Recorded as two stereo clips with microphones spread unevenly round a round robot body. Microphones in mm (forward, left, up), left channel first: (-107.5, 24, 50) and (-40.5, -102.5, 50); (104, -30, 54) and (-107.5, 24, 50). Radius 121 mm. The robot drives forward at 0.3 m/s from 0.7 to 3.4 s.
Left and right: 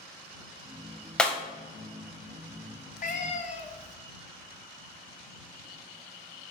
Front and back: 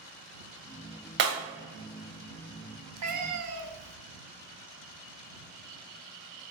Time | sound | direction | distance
1.2 | breaking glass | 155° right | 1.4 m
3.0 | a cat meowing | 150° left | 0.8 m